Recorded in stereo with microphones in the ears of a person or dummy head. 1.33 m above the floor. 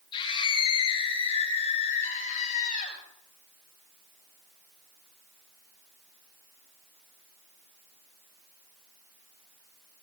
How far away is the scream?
About 6.5 m.